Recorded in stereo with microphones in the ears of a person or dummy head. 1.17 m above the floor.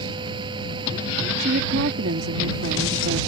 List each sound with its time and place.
0.0 s a fan: 25° right (ahead or behind)
1.4 s a woman speaking: 55° right (ahead or behind)